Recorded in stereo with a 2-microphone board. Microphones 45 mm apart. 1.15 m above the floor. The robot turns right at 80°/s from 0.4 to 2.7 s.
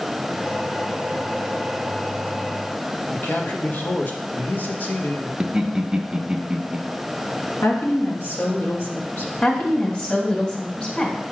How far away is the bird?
I don't hear a bird.